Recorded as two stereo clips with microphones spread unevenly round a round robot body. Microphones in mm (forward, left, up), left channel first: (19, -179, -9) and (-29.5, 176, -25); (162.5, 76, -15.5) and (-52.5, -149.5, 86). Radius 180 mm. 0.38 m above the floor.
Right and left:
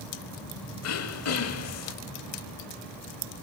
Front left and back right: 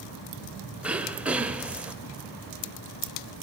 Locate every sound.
0.8 s throat clearing: 35° right, 1.5 m